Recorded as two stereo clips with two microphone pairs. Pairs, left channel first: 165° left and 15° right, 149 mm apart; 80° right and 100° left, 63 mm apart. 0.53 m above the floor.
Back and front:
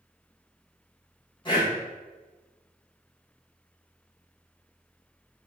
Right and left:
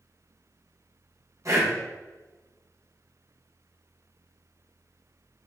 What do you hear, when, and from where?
1.4 s breathing: 110° left, 2.5 m